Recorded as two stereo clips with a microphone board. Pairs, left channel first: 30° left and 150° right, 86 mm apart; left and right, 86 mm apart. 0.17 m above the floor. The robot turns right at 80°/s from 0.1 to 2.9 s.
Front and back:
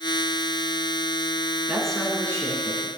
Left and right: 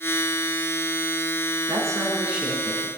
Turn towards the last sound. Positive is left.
turn(degrees=25)